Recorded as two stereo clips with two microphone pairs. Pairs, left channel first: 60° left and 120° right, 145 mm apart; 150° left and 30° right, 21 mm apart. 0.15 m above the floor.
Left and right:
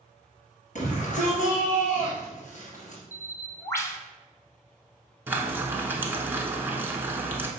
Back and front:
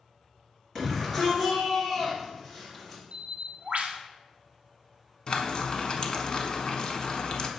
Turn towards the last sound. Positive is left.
turn(degrees=175)